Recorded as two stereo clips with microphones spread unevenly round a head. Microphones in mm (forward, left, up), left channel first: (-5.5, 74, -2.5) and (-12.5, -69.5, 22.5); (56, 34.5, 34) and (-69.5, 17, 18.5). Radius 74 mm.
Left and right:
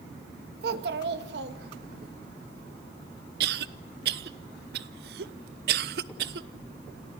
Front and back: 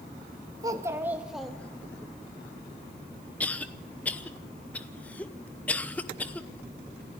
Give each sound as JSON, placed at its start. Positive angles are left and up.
{"t": 0.6, "sound": "a child speaking", "azimuth_deg": -105, "distance_m": 1.9}
{"t": 3.4, "sound": "a cough", "azimuth_deg": -70, "distance_m": 0.9}